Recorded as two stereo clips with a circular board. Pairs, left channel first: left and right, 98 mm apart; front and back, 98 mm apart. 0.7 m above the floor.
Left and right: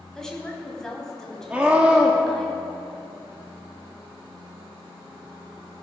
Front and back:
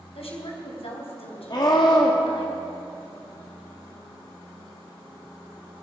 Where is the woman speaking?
5° left, 4 m.